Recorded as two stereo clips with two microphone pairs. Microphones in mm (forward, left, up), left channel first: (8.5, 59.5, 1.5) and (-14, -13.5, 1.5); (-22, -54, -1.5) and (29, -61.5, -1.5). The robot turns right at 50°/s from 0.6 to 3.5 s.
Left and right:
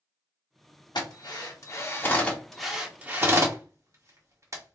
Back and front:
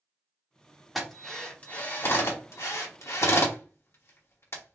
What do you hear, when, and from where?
0.9 s a drill: 80° left, 1.4 m; by 4.8 s 155° right, 1.4 m